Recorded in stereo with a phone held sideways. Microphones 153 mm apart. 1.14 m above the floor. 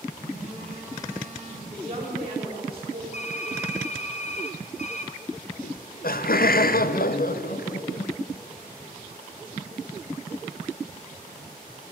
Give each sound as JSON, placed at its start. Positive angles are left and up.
{"t": 0.2, "sound": "a phone buzzing", "side_deg": 75, "distance_m": 3.0}
{"t": 1.7, "sound": "a woman speaking", "side_deg": -40, "distance_m": 2.0}
{"t": 3.1, "sound": "typing on a keyboard", "side_deg": 50, "distance_m": 0.9}
{"t": 5.6, "sound": "laughter", "side_deg": 75, "distance_m": 0.5}